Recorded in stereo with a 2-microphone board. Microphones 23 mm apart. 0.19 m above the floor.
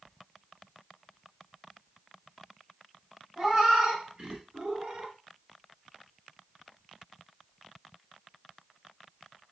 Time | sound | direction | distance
3.4 | a cat meowing | 30° right (ahead or behind) | 2 m